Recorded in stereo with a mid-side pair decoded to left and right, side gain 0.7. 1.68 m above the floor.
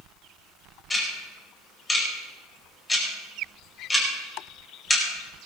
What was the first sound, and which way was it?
Ticking, 15° left.